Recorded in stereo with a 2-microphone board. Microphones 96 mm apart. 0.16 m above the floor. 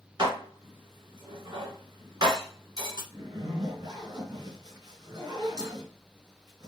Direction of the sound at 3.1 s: 40° right (ahead or behind).